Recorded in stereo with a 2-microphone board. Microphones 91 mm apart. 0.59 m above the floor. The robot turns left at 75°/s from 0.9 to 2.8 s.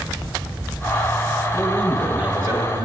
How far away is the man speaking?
About 4 m.